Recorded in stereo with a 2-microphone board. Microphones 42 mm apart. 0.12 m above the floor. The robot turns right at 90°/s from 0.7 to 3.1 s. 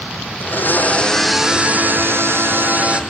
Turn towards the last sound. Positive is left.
turn(degrees=-15)